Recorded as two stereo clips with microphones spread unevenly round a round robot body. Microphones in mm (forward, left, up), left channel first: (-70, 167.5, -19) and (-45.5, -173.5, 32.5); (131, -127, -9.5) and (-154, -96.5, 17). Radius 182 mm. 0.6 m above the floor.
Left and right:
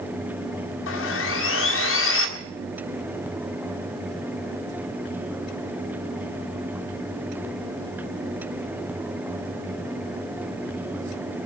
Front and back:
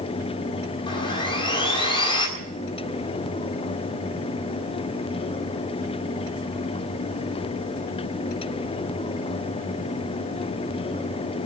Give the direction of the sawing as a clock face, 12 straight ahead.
10 o'clock.